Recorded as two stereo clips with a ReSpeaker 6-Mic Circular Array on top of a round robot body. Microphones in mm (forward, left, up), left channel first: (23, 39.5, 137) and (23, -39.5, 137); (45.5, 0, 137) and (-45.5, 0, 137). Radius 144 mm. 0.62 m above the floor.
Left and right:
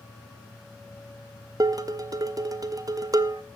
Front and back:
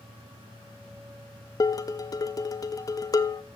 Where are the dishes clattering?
50° right, 0.7 m.